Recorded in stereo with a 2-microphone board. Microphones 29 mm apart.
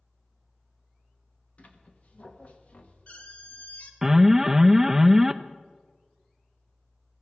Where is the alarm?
10° right (ahead or behind), 0.5 m.